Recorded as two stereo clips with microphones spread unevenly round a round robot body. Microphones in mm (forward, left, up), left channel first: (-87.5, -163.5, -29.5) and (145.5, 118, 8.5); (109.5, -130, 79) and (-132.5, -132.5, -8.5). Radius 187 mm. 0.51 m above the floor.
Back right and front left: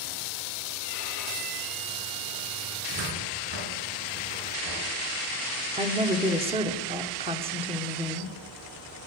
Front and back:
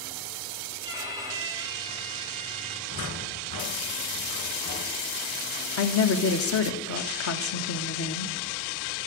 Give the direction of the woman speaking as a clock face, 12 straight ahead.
1 o'clock.